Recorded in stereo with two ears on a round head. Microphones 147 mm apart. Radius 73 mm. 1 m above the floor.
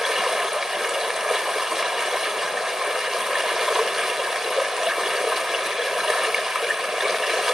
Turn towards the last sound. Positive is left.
turn(degrees=-5)  # may be behind; listen again after turning